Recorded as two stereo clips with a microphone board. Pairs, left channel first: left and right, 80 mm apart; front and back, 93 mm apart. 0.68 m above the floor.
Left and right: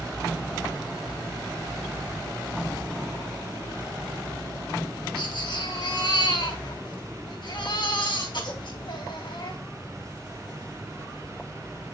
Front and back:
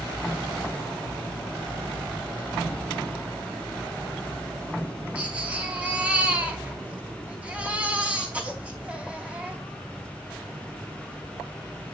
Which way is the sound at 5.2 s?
105° left.